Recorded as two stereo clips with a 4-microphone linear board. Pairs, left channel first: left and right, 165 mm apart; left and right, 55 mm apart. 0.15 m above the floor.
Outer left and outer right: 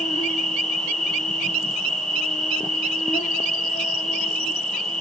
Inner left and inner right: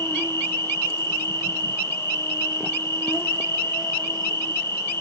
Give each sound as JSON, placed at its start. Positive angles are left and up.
{"t": 0.0, "sound": "an insect", "side_deg": 55, "distance_m": 0.9}